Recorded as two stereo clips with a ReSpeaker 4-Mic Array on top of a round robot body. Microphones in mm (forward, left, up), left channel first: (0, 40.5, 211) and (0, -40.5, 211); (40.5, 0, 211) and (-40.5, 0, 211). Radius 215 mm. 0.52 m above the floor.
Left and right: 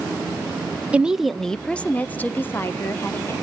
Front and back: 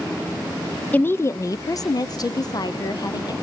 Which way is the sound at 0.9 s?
40° right.